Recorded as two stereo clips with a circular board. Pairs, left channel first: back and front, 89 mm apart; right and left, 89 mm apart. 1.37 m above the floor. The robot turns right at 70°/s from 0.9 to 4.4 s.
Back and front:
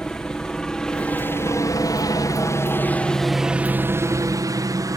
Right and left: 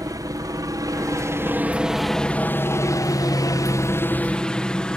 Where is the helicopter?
100° left; by 5.0 s 15° right.